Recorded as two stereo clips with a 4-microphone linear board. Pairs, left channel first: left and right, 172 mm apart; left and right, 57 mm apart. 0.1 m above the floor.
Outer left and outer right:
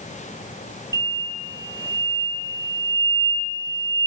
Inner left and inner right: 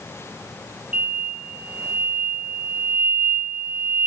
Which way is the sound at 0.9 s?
20° right (ahead or behind).